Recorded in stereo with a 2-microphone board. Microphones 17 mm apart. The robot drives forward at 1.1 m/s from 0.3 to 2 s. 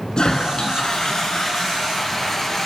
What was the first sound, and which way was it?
A toilet flushing, 50° left (ahead or behind).